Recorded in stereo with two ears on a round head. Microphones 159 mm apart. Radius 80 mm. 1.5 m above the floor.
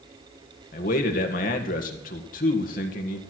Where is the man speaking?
50° left (ahead or behind), 1.7 m.